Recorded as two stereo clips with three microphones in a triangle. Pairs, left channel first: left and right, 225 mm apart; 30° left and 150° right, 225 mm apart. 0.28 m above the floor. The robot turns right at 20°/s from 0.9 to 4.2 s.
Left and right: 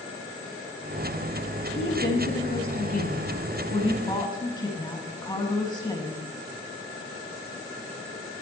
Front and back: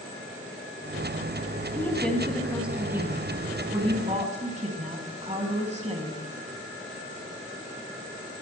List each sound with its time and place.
1.8 s a woman speaking: 110° left, 2.5 m; by 6.2 s 160° left, 2.5 m